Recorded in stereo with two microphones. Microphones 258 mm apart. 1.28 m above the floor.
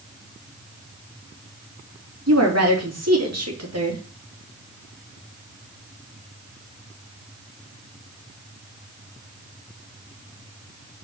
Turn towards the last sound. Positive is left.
turn(degrees=-75)  # may be behind; listen again after turning